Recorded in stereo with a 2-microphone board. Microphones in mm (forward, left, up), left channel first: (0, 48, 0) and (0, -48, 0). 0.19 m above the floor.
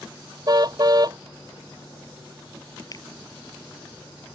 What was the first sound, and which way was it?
A car horn, 45° right (ahead or behind).